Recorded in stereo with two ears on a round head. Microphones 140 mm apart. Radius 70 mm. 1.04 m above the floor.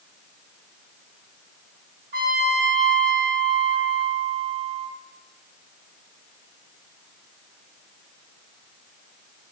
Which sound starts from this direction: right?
A trumpet, at 2.1 s.